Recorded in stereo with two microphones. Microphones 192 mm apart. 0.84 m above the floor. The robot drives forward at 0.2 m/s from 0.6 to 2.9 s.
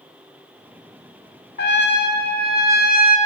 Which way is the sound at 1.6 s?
60° left (ahead or behind).